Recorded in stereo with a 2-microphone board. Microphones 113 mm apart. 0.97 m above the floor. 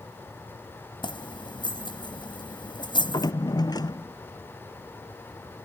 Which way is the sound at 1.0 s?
45° left (ahead or behind).